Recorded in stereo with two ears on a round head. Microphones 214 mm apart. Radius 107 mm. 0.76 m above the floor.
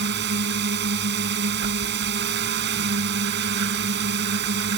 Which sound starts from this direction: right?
A drone, at 0.0 s.